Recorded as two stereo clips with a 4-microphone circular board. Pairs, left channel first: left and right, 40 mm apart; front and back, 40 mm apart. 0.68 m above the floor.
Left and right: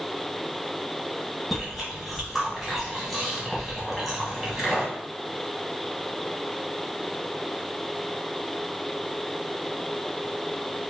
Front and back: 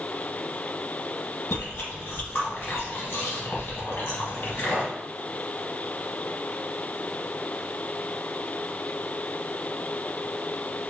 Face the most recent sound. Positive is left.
turn(degrees=0)